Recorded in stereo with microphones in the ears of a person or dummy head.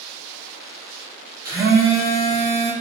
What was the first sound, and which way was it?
A phone buzzing, 10° right (ahead or behind).